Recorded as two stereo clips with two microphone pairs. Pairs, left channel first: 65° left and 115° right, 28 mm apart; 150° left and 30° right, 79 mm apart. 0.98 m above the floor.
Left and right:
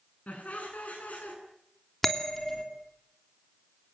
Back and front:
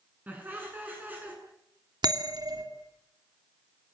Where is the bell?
15° right, 3 m.